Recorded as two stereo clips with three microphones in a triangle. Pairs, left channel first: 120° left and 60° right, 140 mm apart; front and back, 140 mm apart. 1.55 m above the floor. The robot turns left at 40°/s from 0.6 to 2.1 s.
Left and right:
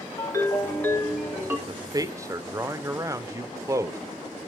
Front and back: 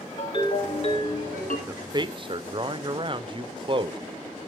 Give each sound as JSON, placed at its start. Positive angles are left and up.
{"t": 0.2, "sound": "a ringtone", "azimuth_deg": 50, "distance_m": 1.8}
{"t": 1.7, "sound": "a man speaking", "azimuth_deg": -110, "distance_m": 0.5}